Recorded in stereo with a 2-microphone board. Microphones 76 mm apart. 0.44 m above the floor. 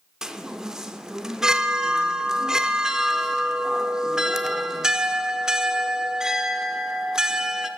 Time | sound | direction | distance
0.2 | a chime | 5° right (ahead or behind) | 0.6 m